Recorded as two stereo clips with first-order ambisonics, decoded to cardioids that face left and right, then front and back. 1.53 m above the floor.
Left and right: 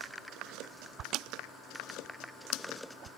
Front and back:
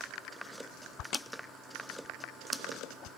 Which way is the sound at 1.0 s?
45° right.